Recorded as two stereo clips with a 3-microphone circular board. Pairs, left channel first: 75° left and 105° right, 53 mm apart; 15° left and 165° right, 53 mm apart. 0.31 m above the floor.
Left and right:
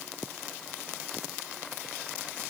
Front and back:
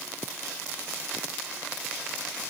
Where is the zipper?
No zipper in this recording.